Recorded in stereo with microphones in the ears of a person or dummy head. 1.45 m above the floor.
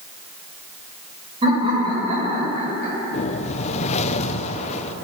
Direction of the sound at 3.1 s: 40° left (ahead or behind).